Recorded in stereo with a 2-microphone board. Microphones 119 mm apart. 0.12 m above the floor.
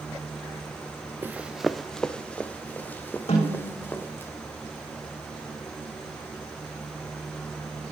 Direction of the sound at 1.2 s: 20° right (ahead or behind).